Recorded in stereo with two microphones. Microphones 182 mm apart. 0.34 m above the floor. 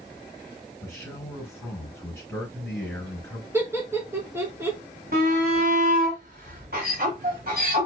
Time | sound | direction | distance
0.8 | a man speaking | 10° left (ahead or behind) | 4 m
3.5 | laughter | 15° right (ahead or behind) | 3.5 m
5.1 | a shout | 55° right (ahead or behind) | 1.9 m